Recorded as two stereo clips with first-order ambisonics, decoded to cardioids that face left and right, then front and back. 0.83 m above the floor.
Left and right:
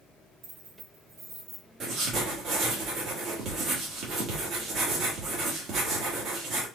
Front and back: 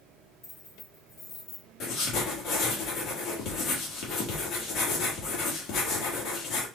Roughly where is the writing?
Ahead right.